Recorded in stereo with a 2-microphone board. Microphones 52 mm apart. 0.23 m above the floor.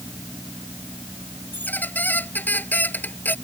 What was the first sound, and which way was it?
A squeak, 35° left (ahead or behind).